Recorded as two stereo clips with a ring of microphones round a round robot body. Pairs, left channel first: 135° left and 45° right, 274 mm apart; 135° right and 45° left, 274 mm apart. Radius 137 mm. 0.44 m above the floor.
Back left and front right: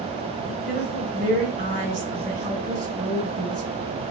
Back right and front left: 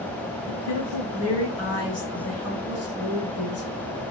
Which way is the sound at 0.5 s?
105° right.